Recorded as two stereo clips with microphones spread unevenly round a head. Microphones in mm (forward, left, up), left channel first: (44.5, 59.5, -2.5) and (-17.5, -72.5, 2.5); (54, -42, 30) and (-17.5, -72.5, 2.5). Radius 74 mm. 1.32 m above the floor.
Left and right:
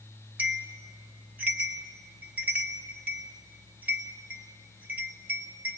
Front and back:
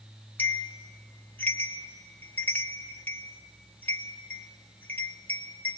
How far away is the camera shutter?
No camera shutter in this recording.